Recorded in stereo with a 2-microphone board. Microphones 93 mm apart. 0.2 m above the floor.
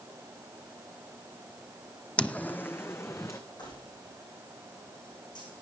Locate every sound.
2.2 s footsteps: 10° left (ahead or behind), 0.6 m; by 3.4 s 30° left (ahead or behind), 1.2 m
3.6 s keys jangling: 55° left (ahead or behind), 7.5 m